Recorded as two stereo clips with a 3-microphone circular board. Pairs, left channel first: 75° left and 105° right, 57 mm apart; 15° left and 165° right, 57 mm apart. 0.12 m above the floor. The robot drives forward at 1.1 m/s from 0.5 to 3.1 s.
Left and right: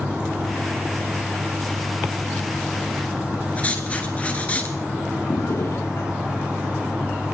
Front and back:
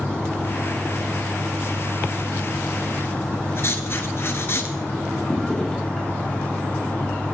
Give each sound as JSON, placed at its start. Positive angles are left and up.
{"t": 3.6, "sound": "writing", "azimuth_deg": 20, "distance_m": 1.8}
{"t": 5.3, "sound": "a drawer", "azimuth_deg": 95, "distance_m": 5.0}